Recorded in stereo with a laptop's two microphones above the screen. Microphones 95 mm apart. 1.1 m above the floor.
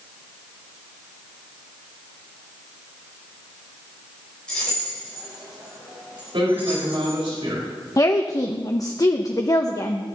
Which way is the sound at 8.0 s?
40° left (ahead or behind).